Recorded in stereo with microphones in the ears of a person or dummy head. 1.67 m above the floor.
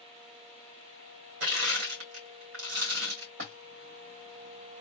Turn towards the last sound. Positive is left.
turn(degrees=-45)  # may be behind; listen again after turning